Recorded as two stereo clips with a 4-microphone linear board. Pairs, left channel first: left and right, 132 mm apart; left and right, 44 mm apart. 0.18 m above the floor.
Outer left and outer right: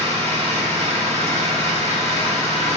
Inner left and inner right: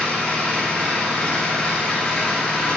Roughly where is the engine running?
Left.